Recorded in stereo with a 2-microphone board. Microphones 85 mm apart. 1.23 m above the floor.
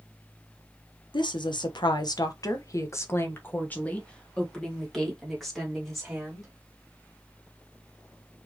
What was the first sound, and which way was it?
A woman speaking, 65° left (ahead or behind).